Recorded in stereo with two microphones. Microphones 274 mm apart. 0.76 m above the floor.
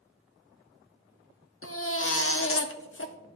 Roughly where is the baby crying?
Left.